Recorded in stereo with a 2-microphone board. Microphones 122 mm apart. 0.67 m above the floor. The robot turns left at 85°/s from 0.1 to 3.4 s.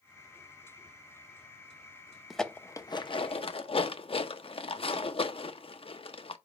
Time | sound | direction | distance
2.3 | dishes clattering | centre (ahead or behind) | 0.6 m